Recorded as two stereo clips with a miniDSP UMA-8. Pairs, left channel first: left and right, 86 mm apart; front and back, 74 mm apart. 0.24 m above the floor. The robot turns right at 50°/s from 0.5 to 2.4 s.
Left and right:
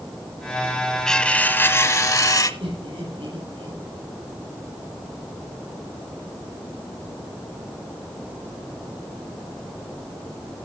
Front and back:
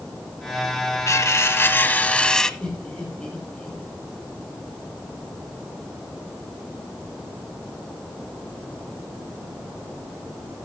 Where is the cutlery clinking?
10° left, 1.1 m; by 2.5 s 75° left, 1.1 m.